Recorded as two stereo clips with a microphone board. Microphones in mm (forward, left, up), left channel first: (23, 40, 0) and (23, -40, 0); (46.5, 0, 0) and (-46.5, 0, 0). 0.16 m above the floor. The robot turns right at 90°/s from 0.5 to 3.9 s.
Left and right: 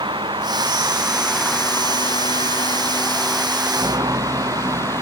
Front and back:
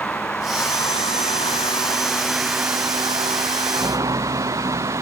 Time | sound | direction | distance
0.0 | a vehicle | 75° right | ?